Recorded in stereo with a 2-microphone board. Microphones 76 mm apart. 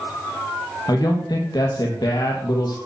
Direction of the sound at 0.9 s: 65° left (ahead or behind).